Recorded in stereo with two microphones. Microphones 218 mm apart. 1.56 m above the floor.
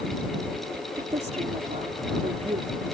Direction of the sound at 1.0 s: 30° right (ahead or behind).